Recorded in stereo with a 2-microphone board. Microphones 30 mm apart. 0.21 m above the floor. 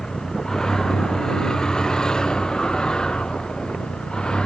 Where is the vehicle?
15° left (ahead or behind); by 4.5 s 25° left (ahead or behind).